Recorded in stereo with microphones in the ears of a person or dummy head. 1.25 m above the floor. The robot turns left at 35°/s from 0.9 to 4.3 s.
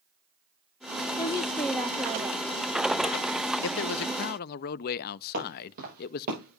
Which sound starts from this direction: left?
A man speaking, at 3.6 s.